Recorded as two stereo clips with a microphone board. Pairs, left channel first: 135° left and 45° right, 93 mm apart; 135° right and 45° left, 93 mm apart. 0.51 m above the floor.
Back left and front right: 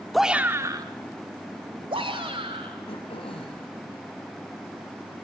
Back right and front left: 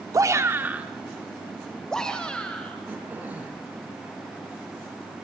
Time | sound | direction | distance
0.1 | a shout | 45° left | 0.8 m
2.9 | throat clearing | 115° left | 4 m